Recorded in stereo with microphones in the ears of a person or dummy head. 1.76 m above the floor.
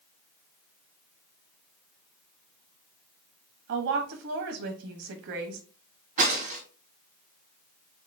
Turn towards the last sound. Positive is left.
turn(degrees=-40)  # may be behind; listen again after turning